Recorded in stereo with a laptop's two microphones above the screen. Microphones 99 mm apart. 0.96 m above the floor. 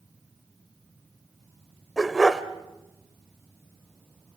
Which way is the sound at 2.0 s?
5° right (ahead or behind).